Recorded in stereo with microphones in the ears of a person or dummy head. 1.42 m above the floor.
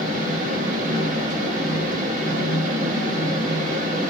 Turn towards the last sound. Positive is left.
turn(degrees=-45)  # may be behind; listen again after turning